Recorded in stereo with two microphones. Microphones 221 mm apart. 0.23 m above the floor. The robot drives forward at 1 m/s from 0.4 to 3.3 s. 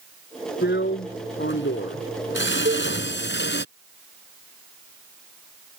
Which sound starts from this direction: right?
A cowbell, at 2.6 s.